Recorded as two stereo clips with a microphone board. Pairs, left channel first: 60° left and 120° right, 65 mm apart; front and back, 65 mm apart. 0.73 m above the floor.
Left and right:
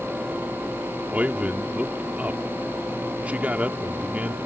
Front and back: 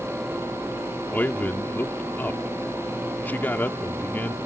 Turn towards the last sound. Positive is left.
turn(degrees=-55)